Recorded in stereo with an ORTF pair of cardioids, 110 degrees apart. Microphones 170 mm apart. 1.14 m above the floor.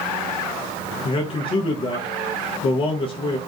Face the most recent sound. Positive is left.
turn(degrees=30)